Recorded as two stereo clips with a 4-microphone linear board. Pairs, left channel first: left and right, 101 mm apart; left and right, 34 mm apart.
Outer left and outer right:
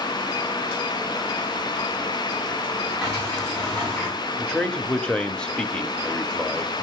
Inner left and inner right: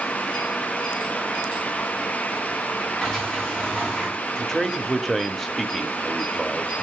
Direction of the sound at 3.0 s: 10° left (ahead or behind).